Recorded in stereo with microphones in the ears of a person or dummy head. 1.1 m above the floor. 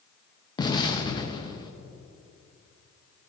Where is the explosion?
25° left (ahead or behind), 0.7 m.